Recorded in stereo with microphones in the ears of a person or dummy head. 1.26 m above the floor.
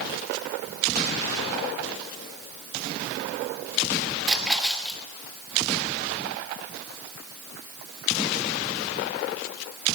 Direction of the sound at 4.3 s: Centre (ahead or behind).